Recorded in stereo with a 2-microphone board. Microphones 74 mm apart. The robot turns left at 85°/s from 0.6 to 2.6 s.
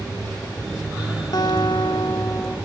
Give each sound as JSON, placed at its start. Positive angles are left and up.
{"t": 1.3, "sound": "a guitar", "azimuth_deg": 125, "distance_m": 1.3}